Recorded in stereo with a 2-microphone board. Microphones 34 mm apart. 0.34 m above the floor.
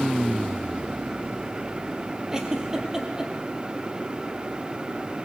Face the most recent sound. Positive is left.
turn(degrees=-20)  # may be behind; listen again after turning